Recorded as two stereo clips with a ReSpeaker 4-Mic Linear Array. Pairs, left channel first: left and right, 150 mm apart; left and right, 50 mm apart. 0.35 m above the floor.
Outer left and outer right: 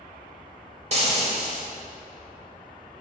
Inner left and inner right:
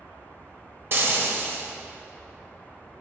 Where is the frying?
45° right (ahead or behind), 1.4 m.